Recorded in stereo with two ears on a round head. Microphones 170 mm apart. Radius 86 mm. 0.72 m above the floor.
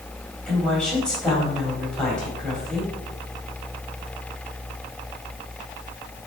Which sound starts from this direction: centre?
A woman speaking, at 0.5 s.